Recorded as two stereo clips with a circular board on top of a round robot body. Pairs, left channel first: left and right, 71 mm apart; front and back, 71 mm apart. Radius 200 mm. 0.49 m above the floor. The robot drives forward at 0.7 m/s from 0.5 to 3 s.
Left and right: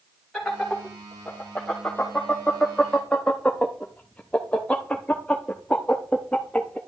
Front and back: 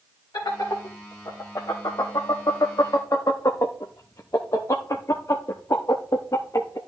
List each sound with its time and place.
0.3 s laughter: 5° left, 2.5 m; by 6.8 s 20° left, 1.1 m